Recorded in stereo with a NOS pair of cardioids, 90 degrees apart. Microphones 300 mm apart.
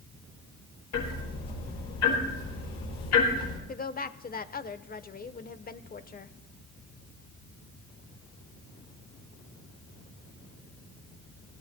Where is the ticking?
65° left, 9 m.